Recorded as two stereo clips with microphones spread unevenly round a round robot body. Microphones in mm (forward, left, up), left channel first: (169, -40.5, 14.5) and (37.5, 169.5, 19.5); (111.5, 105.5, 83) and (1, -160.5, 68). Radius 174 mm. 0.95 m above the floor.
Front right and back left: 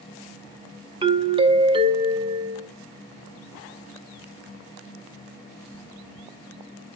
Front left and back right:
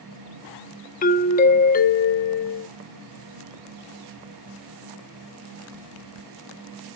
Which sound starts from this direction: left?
A doorbell, at 1.0 s.